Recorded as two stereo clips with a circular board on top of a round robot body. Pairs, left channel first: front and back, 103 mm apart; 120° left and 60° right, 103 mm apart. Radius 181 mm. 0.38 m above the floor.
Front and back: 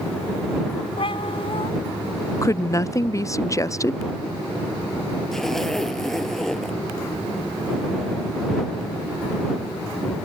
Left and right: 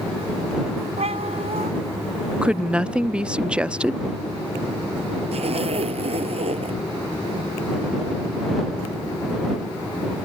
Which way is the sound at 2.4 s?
10° left.